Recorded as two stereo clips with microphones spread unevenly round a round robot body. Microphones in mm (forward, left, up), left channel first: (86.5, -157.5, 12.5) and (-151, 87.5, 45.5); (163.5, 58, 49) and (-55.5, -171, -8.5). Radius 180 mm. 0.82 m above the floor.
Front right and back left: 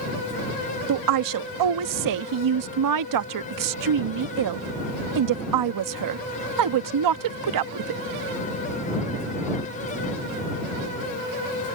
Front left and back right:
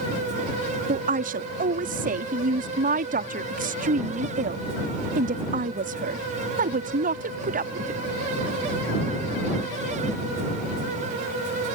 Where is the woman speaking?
165° left.